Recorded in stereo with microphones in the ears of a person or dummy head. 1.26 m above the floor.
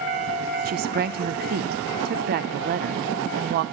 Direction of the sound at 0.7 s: 45° right (ahead or behind).